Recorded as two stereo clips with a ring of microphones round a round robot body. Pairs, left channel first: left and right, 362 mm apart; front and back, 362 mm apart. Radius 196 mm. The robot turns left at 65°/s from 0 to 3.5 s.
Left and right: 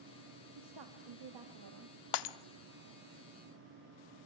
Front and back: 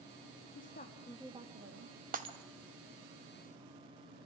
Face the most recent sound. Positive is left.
turn(degrees=20)